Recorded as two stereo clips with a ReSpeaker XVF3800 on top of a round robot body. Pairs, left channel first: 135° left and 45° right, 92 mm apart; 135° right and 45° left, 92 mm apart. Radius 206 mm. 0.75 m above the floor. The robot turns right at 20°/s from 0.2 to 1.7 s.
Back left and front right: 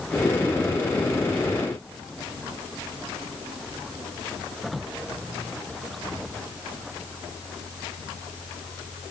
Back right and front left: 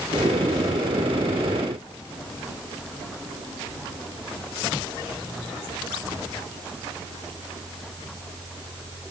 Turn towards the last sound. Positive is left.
No sound to turn to.